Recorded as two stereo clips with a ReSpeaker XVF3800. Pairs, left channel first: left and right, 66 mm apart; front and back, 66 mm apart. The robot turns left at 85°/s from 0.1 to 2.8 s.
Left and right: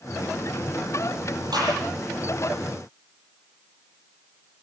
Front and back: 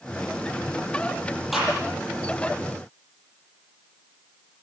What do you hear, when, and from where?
1.5 s a gunshot: 90° right, 9 m; by 1.8 s 110° right, 9 m